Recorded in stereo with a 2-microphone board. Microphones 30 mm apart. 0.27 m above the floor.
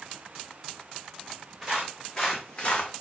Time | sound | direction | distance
1.6 | footsteps | 5° right (ahead or behind) | 1.2 m